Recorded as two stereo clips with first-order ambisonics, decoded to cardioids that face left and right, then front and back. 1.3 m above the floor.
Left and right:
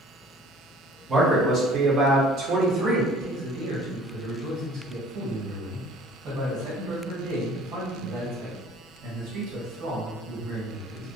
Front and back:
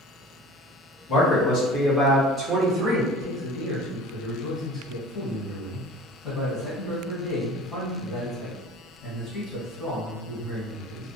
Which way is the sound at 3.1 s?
75° right.